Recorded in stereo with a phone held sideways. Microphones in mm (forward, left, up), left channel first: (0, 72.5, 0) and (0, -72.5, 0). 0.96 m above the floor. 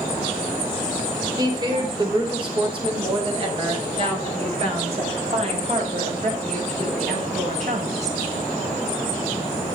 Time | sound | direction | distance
1.4 | a woman speaking | 25° right (ahead or behind) | 3.5 m